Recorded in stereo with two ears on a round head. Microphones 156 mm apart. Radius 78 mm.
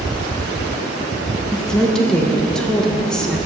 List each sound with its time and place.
1.5 s a woman speaking: 5° left (ahead or behind), 0.8 m